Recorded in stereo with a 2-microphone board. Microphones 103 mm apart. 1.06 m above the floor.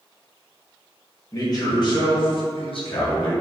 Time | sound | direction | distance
1.3 | a man speaking | 35° left (ahead or behind) | 1.0 m